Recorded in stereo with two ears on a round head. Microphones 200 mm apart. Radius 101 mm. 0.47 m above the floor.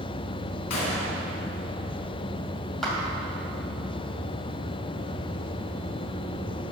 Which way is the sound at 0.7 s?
80° left.